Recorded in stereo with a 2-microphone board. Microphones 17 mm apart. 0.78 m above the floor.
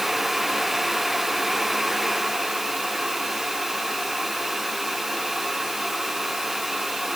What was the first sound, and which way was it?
Only background noise.